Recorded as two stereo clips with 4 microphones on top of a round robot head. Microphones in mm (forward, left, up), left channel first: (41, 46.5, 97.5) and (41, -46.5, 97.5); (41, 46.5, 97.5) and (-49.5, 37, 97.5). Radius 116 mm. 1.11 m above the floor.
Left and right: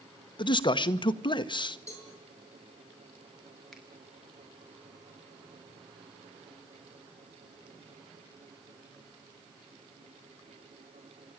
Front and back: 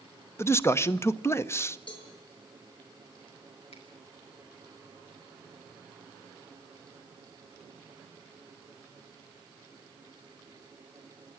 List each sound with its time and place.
0.4 s a man speaking: 65° left, 1.2 m
1.9 s a cowbell: 35° left, 7.5 m
3.7 s a finger snap: straight ahead, 5.5 m